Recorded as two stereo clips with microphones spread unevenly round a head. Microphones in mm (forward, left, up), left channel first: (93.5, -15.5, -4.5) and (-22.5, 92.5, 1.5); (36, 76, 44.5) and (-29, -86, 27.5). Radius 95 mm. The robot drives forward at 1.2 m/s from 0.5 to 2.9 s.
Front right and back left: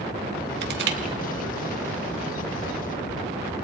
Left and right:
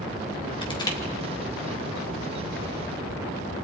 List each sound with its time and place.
0.6 s crushing: 130° left, 2 m; by 1.0 s 140° left, 2.5 m